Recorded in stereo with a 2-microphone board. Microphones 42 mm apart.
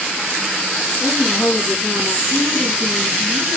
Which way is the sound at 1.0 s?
70° left (ahead or behind).